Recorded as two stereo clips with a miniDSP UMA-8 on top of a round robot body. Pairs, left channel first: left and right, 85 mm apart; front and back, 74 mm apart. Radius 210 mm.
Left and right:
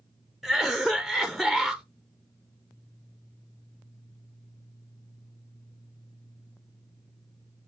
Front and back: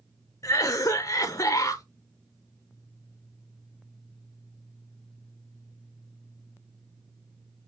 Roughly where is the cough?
Ahead.